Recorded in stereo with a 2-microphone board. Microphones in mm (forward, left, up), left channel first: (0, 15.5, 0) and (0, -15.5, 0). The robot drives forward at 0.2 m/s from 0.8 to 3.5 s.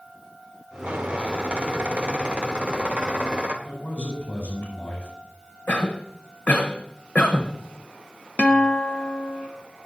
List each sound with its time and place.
0.8 s a squeak: 45° right (ahead or behind), 1.4 m; by 3.5 s 35° right (ahead or behind), 1.8 m
3.6 s a man speaking: 70° left (ahead or behind), 5.5 m
5.7 s a cough: 60° left (ahead or behind), 1.1 m
8.4 s a guitar: 35° left (ahead or behind), 0.7 m